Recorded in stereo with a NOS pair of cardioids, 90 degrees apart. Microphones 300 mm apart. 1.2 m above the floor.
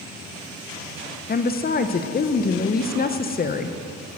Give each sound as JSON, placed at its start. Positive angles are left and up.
{"t": 1.3, "sound": "a woman speaking", "azimuth_deg": 30, "distance_m": 0.9}